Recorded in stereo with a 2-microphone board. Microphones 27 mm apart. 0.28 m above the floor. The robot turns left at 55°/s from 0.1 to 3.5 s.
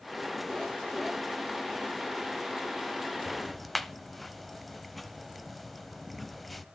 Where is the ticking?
10° right (ahead or behind), 0.7 m; by 6.7 s centre (ahead or behind), 0.7 m.